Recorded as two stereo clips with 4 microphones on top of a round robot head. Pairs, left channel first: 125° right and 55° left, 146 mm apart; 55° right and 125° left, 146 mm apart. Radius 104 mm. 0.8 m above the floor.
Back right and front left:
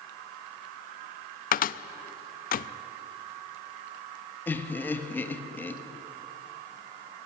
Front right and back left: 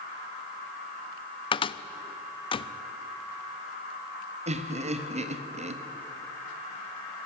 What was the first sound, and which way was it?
A cupboard door, 110° right.